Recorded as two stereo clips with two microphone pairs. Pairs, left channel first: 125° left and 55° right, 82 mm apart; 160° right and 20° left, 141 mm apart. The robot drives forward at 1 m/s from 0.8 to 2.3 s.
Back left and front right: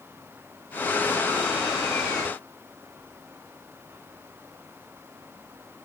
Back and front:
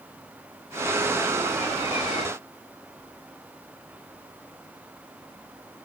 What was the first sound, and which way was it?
Only background noise.